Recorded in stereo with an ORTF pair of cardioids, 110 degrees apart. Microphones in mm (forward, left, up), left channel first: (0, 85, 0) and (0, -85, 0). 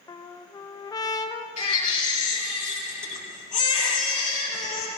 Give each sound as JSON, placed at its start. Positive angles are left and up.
{"t": 0.1, "sound": "a trumpet", "azimuth_deg": 25, "distance_m": 0.7}
{"t": 1.6, "sound": "a baby crying", "azimuth_deg": 50, "distance_m": 5.5}